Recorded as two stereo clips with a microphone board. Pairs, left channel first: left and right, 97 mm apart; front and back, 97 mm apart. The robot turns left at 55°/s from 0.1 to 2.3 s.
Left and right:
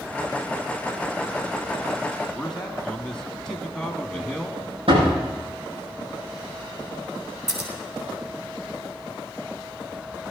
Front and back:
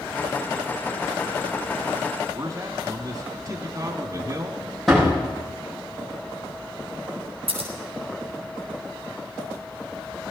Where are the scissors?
175° right, 2.5 m.